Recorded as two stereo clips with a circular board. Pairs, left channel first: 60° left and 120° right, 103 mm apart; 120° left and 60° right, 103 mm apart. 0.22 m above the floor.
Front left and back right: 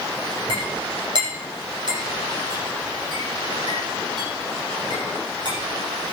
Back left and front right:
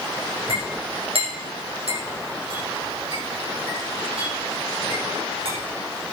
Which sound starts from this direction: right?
A clink, at 0.5 s.